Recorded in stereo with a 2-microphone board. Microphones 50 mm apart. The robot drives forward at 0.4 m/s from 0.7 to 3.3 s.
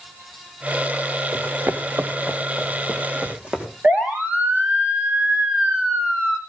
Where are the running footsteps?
85° right, 1.0 m; by 3.7 s 25° right (ahead or behind), 3.5 m.